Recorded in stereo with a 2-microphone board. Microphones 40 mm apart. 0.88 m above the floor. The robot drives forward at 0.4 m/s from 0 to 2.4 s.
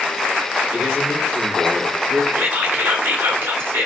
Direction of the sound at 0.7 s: 65° right (ahead or behind).